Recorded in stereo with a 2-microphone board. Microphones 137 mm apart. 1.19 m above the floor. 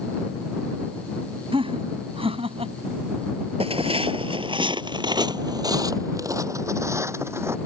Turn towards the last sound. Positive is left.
turn(degrees=-20)  # may be behind; listen again after turning